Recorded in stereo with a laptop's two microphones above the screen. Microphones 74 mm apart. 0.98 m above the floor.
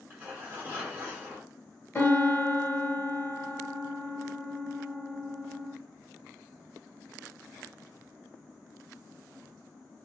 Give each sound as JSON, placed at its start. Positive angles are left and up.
{"t": 0.1, "sound": "tearing paper", "side_deg": -25, "distance_m": 1.2}
{"t": 1.9, "sound": "a piano", "side_deg": 30, "distance_m": 0.9}